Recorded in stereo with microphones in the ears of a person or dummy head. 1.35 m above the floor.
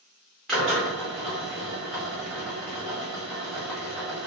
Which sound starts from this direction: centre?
A drill, at 0.5 s.